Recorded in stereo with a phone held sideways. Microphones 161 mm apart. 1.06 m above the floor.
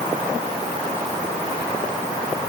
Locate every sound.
Only background noise.